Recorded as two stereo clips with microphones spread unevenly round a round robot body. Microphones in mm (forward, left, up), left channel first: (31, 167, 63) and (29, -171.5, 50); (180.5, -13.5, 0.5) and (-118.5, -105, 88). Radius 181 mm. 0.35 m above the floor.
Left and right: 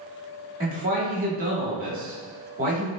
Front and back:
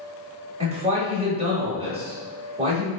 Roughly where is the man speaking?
Right.